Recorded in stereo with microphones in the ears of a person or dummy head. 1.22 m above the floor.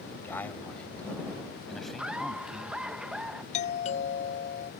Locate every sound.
0.1 s a man speaking: 15° left (ahead or behind); by 3.0 s 5° right (ahead or behind)
2.0 s laughter: 5° right (ahead or behind)
3.5 s a doorbell: 40° left (ahead or behind)